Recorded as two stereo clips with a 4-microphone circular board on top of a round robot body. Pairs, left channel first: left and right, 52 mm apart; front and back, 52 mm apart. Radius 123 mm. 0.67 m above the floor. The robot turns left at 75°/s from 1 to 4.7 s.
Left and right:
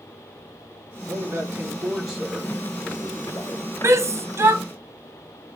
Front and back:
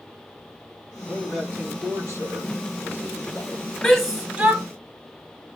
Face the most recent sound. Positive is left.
turn(degrees=-130)